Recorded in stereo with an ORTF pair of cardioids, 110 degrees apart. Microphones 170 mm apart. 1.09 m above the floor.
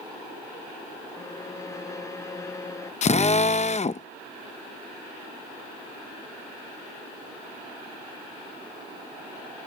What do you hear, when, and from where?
1.1 s a violin: 20° left
3.0 s a drill: 40° left